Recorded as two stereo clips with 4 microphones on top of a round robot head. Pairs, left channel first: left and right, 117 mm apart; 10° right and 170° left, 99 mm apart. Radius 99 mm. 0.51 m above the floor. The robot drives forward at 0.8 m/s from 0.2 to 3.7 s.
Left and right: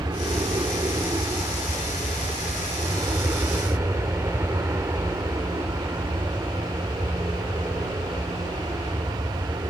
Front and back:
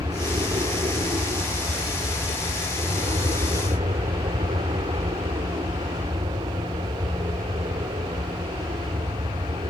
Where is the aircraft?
145° right; by 9.7 s 155° right.